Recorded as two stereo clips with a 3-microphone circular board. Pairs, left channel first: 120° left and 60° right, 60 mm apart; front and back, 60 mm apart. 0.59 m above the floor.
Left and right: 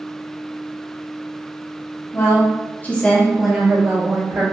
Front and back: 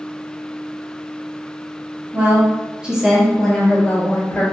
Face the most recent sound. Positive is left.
turn(degrees=-45)